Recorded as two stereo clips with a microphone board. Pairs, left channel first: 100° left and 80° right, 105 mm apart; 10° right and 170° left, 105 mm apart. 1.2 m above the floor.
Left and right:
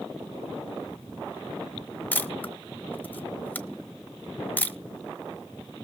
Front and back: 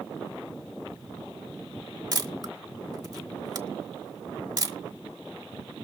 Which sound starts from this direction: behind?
A camera shutter, at 2.1 s.